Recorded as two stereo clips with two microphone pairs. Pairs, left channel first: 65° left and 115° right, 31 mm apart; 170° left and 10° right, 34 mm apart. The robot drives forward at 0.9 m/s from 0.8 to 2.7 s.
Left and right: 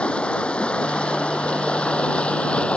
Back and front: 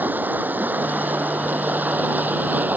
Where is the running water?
15° left.